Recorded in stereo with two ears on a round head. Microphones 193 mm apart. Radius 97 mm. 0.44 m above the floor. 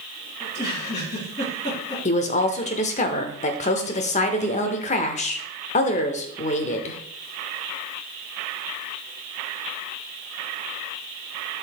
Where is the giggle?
30° left (ahead or behind), 4.5 m.